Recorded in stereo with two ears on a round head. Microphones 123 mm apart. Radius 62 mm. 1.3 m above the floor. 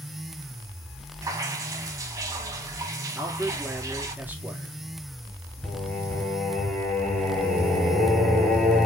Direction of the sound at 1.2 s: 25° right (ahead or behind).